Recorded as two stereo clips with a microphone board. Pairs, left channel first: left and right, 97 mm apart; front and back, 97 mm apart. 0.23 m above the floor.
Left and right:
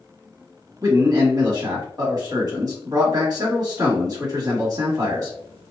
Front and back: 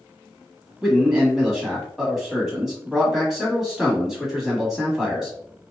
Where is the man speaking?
95° right, 1.3 m.